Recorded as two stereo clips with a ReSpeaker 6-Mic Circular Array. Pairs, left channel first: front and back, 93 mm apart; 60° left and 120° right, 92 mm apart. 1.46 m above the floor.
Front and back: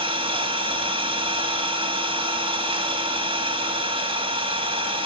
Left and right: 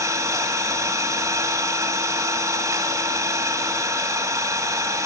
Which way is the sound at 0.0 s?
175° right.